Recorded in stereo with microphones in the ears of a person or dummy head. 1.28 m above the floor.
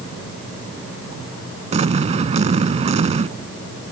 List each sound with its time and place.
1.7 s an explosion: 45° right (ahead or behind)